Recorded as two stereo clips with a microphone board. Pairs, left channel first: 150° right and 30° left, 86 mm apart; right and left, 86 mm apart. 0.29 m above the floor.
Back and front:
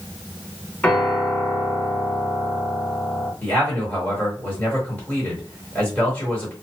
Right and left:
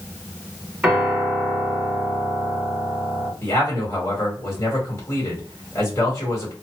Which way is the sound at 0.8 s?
160° left.